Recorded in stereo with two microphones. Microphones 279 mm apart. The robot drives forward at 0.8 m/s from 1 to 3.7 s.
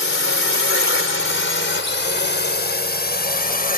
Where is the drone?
45° left (ahead or behind); by 3.8 s 30° left (ahead or behind).